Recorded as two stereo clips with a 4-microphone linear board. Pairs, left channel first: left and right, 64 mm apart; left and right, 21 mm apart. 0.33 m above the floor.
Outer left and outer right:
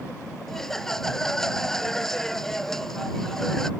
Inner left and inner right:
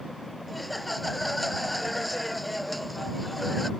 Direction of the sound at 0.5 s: 5° left (ahead or behind).